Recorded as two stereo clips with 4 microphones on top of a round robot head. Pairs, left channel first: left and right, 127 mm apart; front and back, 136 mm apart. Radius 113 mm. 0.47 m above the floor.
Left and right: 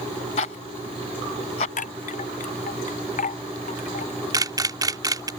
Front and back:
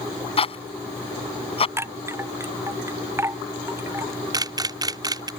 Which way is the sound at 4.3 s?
135° right.